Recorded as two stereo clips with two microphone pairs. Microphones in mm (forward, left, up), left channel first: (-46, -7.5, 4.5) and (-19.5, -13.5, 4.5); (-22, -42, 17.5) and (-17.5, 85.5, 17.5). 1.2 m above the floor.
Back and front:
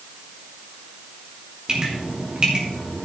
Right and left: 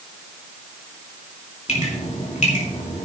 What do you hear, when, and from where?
1.7 s dripping: 70° right, 3 m